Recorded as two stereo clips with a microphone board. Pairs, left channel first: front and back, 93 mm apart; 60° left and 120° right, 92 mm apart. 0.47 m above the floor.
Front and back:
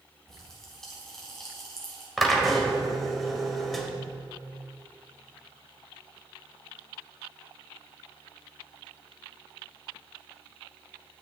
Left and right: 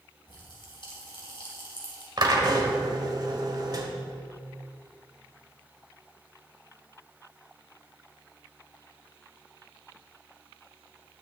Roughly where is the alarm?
No alarm in this recording.